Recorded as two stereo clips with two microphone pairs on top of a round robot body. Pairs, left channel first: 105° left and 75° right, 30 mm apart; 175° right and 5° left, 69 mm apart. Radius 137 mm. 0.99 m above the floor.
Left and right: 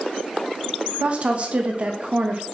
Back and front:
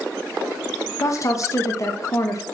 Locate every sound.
1.0 s a woman speaking: 130° right, 1.0 m